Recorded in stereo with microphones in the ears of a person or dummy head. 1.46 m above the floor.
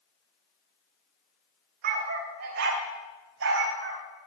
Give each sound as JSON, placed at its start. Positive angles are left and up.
{"t": 1.8, "sound": "a dog barking", "side_deg": -50, "distance_m": 2.0}